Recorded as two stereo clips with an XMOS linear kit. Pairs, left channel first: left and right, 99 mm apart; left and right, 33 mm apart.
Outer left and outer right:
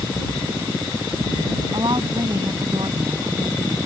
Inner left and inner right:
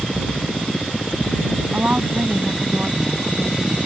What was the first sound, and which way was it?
A woman speaking, 50° right (ahead or behind).